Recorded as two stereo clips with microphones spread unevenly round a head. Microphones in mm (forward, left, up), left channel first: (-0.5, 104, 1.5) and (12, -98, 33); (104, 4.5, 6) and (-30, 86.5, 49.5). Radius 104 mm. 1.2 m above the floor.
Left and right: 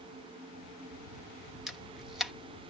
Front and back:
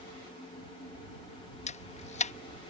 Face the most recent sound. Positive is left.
turn(degrees=5)